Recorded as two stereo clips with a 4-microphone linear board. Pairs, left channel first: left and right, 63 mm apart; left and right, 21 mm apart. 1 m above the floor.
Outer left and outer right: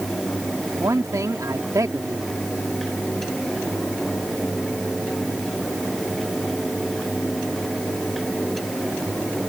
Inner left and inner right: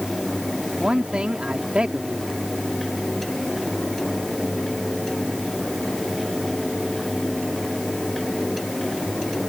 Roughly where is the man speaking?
Right.